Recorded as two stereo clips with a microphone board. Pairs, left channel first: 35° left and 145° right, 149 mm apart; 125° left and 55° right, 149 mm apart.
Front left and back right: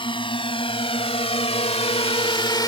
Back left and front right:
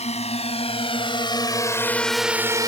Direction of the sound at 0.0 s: 85° left.